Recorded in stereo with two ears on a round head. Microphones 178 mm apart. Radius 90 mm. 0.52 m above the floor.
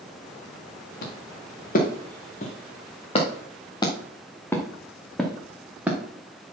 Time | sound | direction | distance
1.0 | footsteps | 50° left (ahead or behind) | 3 m